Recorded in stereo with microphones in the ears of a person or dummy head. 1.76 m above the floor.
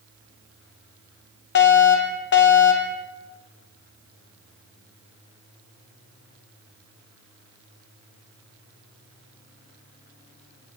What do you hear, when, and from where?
1.6 s a fire alarm: 55° left (ahead or behind), 4 m